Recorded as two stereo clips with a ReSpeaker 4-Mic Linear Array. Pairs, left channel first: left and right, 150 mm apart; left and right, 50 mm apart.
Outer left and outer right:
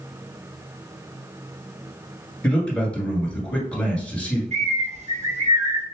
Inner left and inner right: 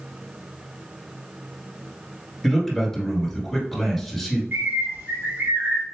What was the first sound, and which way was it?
A man speaking, 5° left (ahead or behind).